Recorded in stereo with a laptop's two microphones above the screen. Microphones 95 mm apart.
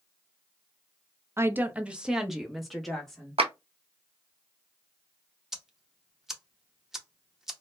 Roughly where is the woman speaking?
Right.